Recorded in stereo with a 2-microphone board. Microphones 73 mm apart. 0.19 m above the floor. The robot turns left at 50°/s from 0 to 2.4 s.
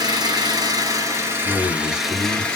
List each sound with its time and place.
0.0 s an engine running: 75° right, 0.9 m; by 2.6 s 165° left, 0.9 m
1.4 s a man speaking: 130° left, 1.1 m; by 2.5 s 85° left, 1.1 m